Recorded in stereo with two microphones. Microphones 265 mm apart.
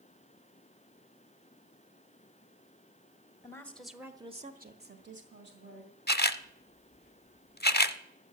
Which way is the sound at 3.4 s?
10° left (ahead or behind).